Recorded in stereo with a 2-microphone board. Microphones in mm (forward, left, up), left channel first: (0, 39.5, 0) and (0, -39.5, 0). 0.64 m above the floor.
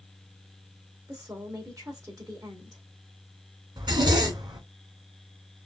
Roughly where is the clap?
I don't hear a clap.